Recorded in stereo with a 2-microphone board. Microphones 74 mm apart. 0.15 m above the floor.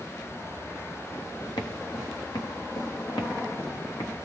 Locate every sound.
1.6 s footsteps: 80° left, 2 m; by 4.2 s 75° left (ahead or behind), 4 m